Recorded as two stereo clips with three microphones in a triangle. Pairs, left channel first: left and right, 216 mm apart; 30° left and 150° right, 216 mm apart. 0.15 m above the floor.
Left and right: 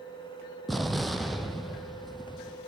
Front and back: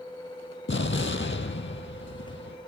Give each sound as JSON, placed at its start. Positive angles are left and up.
{"t": 0.7, "sound": "an explosion", "azimuth_deg": 0, "distance_m": 1.0}